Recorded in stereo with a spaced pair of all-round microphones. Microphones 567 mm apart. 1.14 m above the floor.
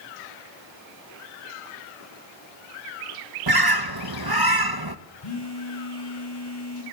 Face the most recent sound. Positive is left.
turn(degrees=40)  # may be behind; listen again after turning